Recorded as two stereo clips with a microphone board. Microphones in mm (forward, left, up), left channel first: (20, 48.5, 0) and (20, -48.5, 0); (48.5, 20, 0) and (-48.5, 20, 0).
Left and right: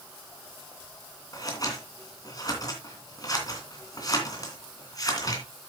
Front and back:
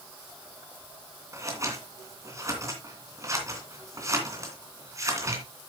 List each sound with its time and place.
1.3 s scissors: 130° left, 2.5 m